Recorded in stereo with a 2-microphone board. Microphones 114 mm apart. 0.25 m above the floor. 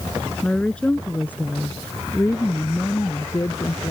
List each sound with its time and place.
0.4 s a woman speaking: 5° left (ahead or behind); by 3.9 s 35° left (ahead or behind)